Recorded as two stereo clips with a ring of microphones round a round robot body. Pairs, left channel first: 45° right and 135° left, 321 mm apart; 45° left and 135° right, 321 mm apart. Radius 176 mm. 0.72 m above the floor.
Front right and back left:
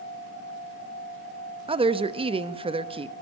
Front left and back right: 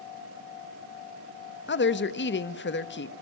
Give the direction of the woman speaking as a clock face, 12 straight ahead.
10 o'clock.